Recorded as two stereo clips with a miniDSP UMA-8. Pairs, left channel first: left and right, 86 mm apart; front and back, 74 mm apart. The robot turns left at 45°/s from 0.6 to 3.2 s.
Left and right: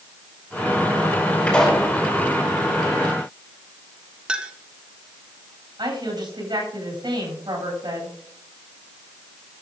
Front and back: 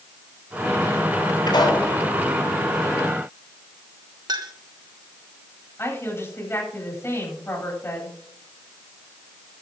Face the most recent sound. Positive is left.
turn(degrees=-55)